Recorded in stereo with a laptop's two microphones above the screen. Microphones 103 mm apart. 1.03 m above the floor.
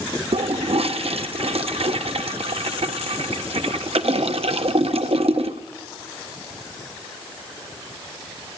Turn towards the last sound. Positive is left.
turn(degrees=-70)  # may be behind; listen again after turning